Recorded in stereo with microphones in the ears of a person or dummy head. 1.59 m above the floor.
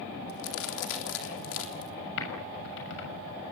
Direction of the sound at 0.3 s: 75° left (ahead or behind).